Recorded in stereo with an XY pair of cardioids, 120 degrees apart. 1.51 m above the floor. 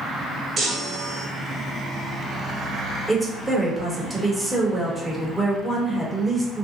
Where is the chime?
35° right, 1.3 m.